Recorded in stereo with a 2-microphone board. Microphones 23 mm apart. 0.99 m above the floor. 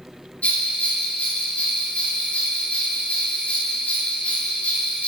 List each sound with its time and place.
0.4 s a bell: 75° left (ahead or behind), 1.9 m